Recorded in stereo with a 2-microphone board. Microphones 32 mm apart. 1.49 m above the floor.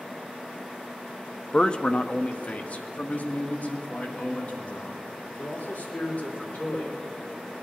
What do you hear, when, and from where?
1.5 s a man speaking: 30° left (ahead or behind), 0.5 m; by 6.9 s 55° left (ahead or behind), 4.5 m